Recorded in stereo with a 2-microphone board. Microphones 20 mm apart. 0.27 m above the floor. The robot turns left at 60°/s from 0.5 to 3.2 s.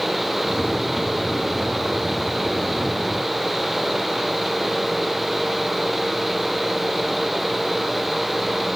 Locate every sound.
Only background noise.